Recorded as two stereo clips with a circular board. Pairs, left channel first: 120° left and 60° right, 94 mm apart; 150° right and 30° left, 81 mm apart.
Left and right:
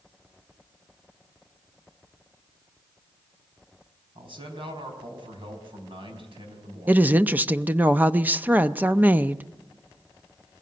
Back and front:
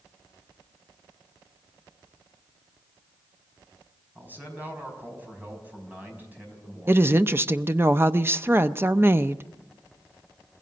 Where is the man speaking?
35° right, 5 m.